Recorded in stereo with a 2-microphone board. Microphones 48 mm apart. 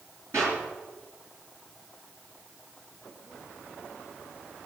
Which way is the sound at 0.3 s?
65° right (ahead or behind).